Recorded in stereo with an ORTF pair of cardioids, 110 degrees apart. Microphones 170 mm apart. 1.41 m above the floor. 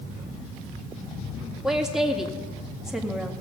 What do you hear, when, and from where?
1.6 s a woman speaking: 5° right, 1.9 m